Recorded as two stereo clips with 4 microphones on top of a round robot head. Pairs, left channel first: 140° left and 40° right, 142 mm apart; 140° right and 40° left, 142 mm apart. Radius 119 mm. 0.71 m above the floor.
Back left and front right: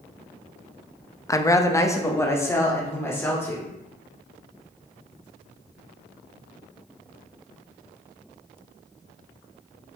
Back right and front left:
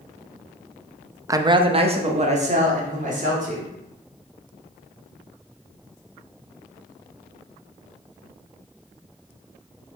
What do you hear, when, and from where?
1.3 s a woman speaking: 90° left, 0.7 m; by 3.7 s 70° left, 3 m